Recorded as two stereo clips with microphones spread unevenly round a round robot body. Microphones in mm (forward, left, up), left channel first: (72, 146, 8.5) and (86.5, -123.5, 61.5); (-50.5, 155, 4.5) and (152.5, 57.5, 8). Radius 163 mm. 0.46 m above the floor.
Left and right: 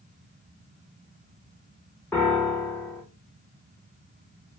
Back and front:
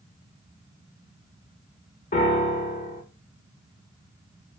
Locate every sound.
2.1 s a piano: 155° left, 1.0 m